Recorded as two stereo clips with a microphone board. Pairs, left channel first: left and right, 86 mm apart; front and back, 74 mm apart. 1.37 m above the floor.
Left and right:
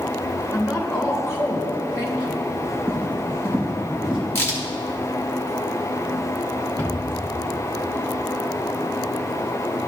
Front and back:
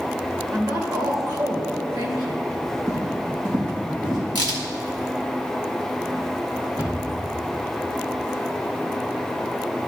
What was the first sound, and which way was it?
A woman speaking, 145° left.